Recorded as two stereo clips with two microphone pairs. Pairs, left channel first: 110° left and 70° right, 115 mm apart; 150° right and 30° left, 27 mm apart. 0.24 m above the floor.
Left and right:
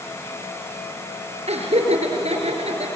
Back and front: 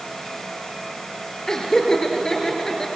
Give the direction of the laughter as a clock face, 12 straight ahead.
3 o'clock.